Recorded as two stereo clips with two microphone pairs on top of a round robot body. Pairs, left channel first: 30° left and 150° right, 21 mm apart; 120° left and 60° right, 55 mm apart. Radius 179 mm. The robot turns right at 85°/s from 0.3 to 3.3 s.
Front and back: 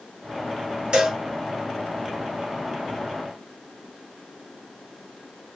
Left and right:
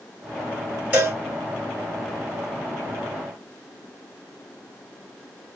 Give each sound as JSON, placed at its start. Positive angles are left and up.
{"t": 0.9, "sound": "a cowbell", "azimuth_deg": -110, "distance_m": 1.7}